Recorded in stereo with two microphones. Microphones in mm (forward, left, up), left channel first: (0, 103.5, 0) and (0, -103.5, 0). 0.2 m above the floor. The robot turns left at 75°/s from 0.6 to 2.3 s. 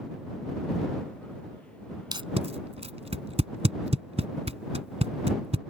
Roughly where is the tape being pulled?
Centre.